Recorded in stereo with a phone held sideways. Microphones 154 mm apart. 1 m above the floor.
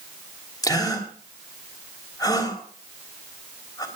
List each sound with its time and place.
0.6 s a gasp: 25° left (ahead or behind), 3 m